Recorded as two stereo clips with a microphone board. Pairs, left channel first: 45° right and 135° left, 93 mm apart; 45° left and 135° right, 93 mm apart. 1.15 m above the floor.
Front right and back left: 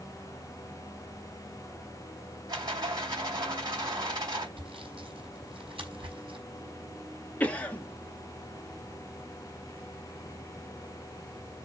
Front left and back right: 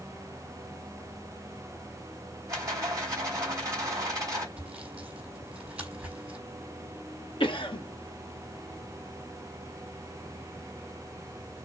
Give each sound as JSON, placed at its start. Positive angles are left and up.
{"t": 2.5, "sound": "a rattle", "azimuth_deg": 165, "distance_m": 4.0}
{"t": 4.6, "sound": "sawing", "azimuth_deg": 150, "distance_m": 4.5}
{"t": 7.4, "sound": "a cough", "azimuth_deg": 30, "distance_m": 1.3}